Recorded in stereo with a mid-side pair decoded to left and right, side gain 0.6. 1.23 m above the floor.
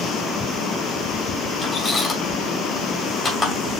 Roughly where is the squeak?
Ahead left.